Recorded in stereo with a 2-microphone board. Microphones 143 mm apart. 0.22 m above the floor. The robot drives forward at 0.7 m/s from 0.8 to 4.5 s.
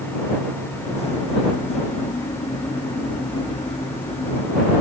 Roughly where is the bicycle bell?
I don't hear a bicycle bell.